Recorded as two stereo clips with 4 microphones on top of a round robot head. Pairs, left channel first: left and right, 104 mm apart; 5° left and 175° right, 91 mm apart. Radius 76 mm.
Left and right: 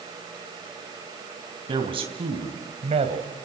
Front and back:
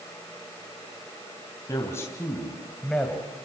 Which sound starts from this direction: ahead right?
A man speaking, at 1.7 s.